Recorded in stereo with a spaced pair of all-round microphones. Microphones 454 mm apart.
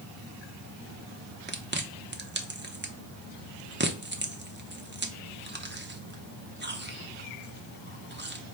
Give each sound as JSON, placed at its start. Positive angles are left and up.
{"t": 1.5, "sound": "chewing", "side_deg": -25, "distance_m": 0.6}